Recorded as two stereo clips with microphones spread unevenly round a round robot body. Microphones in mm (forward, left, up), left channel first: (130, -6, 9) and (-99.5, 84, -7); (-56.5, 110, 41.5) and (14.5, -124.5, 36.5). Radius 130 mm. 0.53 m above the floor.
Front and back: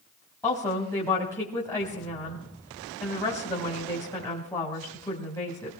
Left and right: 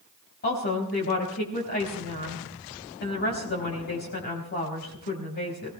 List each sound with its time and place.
0.4 s a woman speaking: 55° left, 4 m